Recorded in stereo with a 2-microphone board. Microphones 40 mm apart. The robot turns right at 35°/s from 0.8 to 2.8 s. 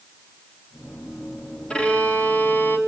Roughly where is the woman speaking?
I don't hear a woman speaking.